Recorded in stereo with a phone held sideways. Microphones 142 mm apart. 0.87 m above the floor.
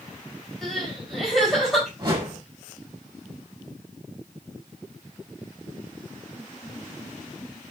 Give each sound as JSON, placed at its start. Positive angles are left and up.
{"t": 0.6, "sound": "crying", "side_deg": 0, "distance_m": 5.0}
{"t": 2.0, "sound": "a whoosh", "side_deg": -30, "distance_m": 5.0}